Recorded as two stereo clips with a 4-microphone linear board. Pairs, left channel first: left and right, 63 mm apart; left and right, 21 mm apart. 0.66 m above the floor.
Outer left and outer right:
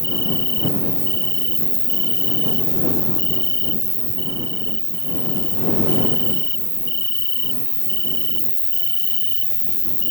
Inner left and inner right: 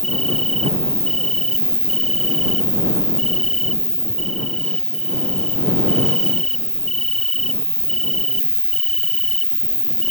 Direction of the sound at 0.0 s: 35° left (ahead or behind).